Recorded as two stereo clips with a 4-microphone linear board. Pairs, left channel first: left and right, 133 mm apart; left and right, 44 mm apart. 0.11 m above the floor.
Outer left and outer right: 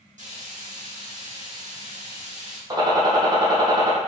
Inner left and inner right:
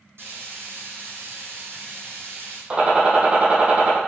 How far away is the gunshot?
About 2 m.